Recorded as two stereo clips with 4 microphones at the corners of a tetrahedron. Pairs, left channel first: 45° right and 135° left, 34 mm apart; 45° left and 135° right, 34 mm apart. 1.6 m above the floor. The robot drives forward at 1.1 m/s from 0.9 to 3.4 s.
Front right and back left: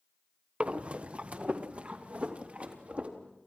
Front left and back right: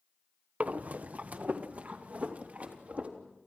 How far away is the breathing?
About 1.3 m.